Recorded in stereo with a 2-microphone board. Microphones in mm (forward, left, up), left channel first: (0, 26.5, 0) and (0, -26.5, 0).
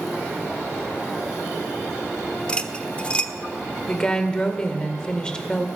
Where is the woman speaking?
15° left (ahead or behind), 1.9 m.